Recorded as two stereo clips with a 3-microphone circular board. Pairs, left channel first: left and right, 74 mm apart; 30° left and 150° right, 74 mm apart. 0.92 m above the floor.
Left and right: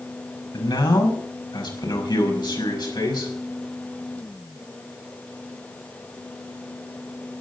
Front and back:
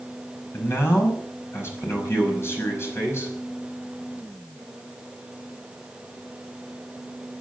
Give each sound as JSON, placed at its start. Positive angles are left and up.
{"t": 0.5, "sound": "a man speaking", "azimuth_deg": 85, "distance_m": 5.5}